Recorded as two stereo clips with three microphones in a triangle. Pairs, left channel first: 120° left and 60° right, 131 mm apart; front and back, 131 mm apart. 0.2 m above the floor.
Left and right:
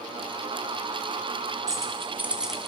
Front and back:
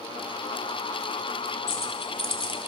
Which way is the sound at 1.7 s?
Straight ahead.